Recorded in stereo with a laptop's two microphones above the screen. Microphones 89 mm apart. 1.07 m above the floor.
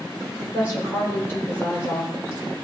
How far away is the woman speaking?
About 5 m.